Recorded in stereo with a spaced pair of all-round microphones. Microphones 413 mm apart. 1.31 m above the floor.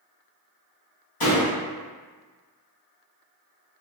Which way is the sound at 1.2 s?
60° left (ahead or behind).